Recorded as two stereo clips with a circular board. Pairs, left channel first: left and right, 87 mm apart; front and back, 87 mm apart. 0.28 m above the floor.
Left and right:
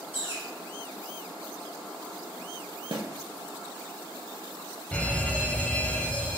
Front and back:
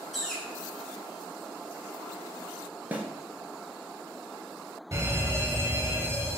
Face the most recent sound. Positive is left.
turn(degrees=155)